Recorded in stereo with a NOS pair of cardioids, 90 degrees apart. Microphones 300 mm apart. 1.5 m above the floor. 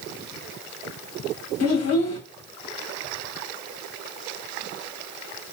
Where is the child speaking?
55° left, 1.3 m.